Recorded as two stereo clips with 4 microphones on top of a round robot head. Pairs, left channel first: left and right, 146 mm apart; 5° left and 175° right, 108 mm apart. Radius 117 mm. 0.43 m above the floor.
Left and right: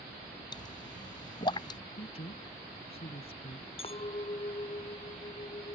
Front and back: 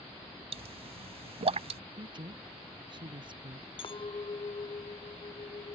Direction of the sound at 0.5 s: 155° left.